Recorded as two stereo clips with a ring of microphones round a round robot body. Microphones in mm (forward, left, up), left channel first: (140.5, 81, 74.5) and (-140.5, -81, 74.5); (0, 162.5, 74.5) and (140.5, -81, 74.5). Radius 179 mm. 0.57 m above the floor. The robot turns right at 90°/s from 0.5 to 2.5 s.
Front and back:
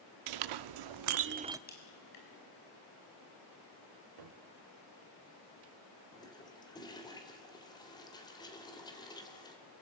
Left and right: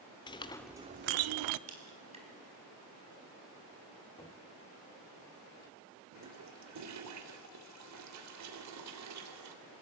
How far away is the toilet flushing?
About 3 m.